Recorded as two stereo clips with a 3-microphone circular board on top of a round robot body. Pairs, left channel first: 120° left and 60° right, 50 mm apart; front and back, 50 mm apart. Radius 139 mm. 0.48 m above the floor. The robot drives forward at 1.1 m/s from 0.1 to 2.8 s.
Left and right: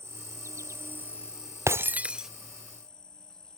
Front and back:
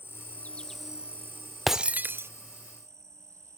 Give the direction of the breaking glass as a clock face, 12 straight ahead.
3 o'clock.